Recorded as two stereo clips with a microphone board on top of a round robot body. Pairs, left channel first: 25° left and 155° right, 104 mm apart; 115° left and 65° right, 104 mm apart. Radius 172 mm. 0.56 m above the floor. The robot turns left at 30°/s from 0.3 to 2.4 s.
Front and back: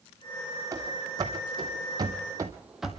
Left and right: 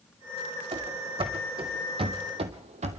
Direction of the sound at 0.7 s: 95° right.